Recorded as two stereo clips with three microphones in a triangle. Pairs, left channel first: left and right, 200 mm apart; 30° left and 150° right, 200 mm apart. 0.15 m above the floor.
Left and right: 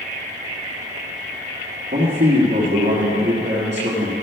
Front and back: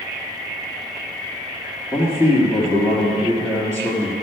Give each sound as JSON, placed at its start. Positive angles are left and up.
{"t": 1.9, "sound": "a man speaking", "azimuth_deg": -60, "distance_m": 2.5}